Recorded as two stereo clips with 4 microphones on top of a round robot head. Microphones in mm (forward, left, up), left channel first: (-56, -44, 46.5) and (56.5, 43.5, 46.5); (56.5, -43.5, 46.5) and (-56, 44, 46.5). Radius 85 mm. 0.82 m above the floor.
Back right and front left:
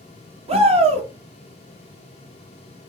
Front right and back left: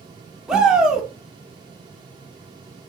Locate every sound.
0.5 s a shout: 60° left, 1.3 m